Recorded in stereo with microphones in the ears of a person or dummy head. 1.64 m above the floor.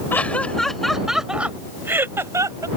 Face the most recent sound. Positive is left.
turn(degrees=-20)  # may be behind; listen again after turning